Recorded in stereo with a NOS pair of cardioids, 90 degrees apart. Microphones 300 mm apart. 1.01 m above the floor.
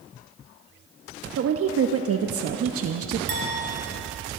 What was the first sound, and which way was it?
A woman speaking, 55° right.